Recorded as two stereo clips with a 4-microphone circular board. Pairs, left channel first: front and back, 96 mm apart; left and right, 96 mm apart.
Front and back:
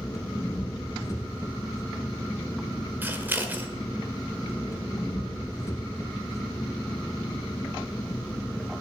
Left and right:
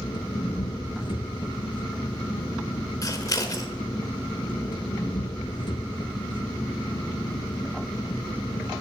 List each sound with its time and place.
0.0 s an engine running: 55° left, 1.7 m
3.0 s scissors: 120° left, 1.5 m